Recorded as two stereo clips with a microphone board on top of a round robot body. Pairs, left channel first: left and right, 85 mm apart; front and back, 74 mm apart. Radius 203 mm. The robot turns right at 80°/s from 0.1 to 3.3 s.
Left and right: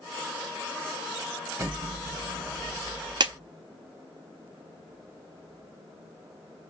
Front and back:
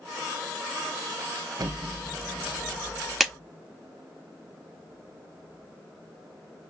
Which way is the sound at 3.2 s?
95° right.